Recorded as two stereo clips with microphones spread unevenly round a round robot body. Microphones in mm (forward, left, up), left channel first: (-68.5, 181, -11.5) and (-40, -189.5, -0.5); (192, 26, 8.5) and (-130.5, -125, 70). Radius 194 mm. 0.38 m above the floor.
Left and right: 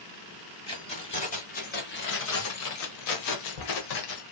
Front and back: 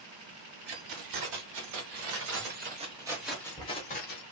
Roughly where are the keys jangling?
Behind.